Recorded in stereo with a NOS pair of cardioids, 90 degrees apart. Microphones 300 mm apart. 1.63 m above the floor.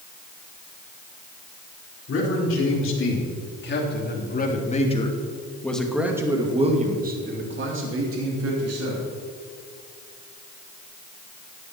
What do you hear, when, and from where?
2.1 s a man speaking: 50° left, 4.5 m; by 9.1 s 60° right, 3.5 m